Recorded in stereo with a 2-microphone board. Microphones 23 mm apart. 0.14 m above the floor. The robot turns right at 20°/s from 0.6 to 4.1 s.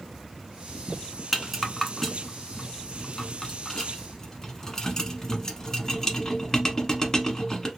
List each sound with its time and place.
1.3 s a rattle: centre (ahead or behind), 0.8 m; by 7.7 s 25° left (ahead or behind), 0.8 m